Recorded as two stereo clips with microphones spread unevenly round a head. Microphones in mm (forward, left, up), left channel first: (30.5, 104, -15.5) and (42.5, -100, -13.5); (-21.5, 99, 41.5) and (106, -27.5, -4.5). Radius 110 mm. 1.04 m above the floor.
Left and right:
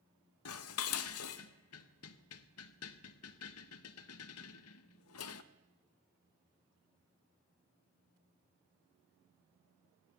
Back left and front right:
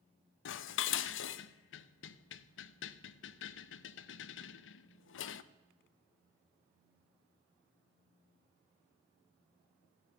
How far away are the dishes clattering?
About 0.6 m.